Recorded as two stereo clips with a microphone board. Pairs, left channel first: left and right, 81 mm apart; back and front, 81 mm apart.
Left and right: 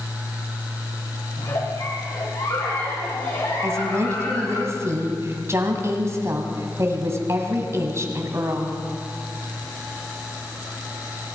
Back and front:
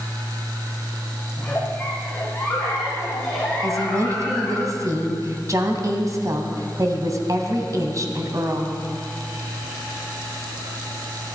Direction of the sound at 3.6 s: 40° right.